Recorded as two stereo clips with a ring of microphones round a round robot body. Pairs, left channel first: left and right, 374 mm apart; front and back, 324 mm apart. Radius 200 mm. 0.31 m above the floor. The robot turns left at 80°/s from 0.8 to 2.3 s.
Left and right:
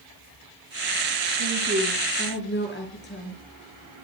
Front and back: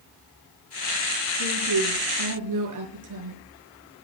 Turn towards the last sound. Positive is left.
turn(degrees=155)